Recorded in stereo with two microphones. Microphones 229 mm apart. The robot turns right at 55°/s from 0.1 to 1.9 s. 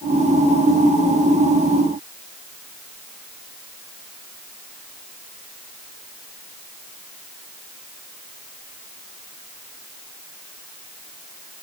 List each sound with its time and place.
Only background noise.